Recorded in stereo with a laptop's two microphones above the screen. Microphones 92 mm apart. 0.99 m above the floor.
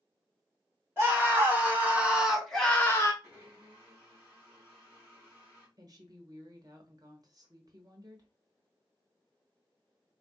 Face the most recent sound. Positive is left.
turn(degrees=-45)  # may be behind; listen again after turning